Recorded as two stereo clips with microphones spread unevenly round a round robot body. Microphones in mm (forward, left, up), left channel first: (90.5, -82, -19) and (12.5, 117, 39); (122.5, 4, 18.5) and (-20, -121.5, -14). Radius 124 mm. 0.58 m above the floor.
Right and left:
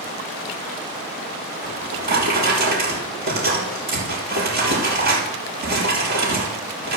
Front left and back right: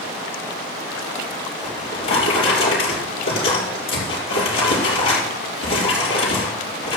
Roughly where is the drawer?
Left.